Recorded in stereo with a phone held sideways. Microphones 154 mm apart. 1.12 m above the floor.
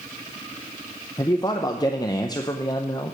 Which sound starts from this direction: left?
A man speaking, at 1.2 s.